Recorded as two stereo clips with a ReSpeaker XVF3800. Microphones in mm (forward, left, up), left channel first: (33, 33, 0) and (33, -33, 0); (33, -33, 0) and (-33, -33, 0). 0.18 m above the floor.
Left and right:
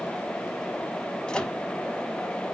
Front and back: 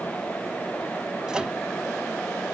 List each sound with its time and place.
1.3 s a microwave: 130° left, 1.0 m